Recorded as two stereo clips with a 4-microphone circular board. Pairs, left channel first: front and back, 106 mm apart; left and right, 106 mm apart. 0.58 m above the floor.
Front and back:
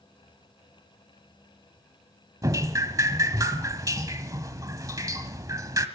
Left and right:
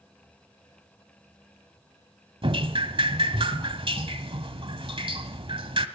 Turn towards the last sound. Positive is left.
turn(degrees=-120)